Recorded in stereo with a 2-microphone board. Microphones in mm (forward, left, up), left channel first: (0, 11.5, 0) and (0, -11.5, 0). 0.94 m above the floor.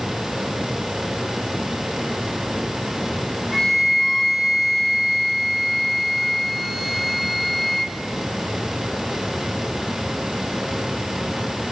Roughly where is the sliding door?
I don't hear a sliding door.